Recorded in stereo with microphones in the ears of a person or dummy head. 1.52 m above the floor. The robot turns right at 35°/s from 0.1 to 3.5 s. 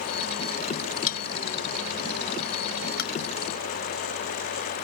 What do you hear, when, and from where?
1.1 s a bell: 45° left (ahead or behind); by 3.1 s 60° left (ahead or behind)